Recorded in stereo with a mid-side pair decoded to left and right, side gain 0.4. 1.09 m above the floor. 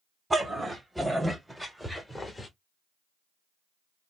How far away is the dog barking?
About 2.0 m.